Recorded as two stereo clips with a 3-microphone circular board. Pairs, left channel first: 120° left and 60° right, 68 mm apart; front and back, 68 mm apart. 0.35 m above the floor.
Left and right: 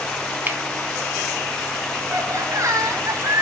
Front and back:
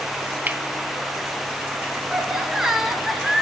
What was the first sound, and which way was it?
Cutlery clinking, 115° right.